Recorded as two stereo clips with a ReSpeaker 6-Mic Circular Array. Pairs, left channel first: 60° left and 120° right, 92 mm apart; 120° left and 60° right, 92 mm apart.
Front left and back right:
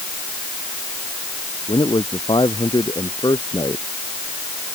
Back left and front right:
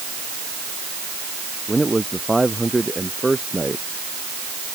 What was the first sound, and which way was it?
A man speaking, 30° left.